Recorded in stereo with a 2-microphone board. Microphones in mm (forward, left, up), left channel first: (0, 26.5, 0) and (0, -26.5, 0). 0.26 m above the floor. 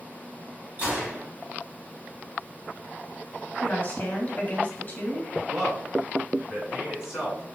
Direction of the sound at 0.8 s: 30° right (ahead or behind).